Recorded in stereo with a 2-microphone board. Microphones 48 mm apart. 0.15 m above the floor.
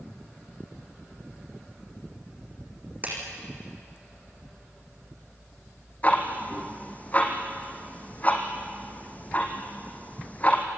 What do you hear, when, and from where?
3.0 s a clap: 35° right (ahead or behind), 6 m
6.0 s ticking: 30° left (ahead or behind), 2.5 m